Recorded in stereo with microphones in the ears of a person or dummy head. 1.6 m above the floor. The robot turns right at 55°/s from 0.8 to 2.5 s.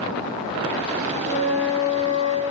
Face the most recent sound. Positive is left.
turn(degrees=60)